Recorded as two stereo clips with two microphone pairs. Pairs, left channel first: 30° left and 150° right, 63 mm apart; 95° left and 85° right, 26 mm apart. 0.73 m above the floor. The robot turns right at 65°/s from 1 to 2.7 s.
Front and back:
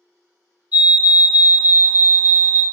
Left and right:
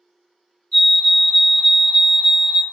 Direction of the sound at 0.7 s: 160° left.